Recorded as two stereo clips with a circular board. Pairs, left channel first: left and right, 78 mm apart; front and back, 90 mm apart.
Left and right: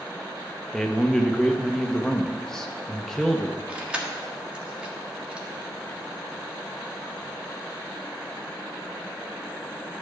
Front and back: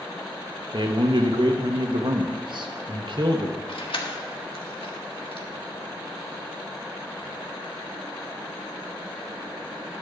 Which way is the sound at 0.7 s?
175° left.